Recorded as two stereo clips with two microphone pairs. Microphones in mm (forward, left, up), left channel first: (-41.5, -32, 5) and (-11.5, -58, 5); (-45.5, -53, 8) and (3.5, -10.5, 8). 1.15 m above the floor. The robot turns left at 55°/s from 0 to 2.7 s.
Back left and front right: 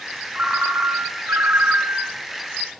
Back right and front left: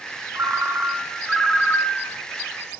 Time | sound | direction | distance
0.3 | a ringtone | 5° left | 3 m